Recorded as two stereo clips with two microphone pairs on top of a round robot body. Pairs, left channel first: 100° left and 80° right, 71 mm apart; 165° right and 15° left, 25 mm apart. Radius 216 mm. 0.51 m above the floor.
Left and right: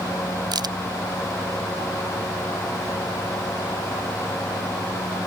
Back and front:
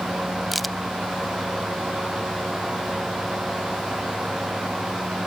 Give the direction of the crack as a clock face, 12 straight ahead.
2 o'clock.